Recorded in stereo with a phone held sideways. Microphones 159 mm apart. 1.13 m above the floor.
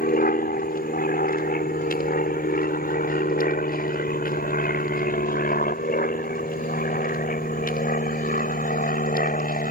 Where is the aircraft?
65° left (ahead or behind); by 9.7 s 60° left (ahead or behind).